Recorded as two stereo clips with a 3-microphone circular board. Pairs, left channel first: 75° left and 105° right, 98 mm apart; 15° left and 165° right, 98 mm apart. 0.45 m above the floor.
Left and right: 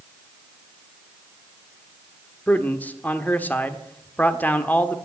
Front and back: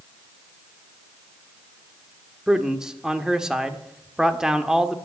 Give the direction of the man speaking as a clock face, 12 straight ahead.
8 o'clock.